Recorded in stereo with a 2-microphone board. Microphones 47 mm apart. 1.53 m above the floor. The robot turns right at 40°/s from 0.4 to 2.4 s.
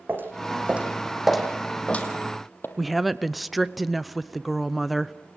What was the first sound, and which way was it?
Footsteps, 45° right (ahead or behind).